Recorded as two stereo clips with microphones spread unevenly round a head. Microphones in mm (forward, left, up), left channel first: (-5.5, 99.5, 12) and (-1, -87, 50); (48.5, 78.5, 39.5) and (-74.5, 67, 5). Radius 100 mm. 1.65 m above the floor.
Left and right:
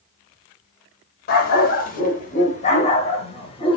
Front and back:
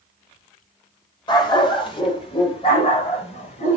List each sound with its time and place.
1.3 s a dog barking: 45° left, 3 m; by 3.8 s 25° left, 3.5 m